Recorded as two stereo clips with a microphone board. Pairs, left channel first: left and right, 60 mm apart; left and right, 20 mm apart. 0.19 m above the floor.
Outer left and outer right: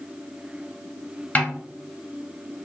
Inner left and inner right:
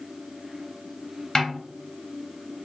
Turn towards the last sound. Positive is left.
turn(degrees=25)  # may be behind; listen again after turning